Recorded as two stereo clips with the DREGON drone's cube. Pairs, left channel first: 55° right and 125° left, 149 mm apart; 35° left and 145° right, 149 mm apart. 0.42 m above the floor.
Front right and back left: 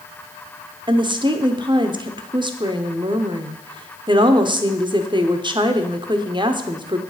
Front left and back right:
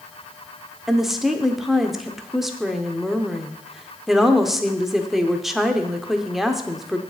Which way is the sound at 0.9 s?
130° left.